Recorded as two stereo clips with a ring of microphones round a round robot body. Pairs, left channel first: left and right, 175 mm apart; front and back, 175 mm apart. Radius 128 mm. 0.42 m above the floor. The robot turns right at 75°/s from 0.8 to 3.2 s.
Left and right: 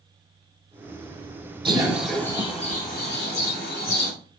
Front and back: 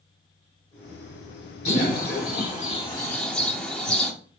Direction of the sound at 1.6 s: 35° right.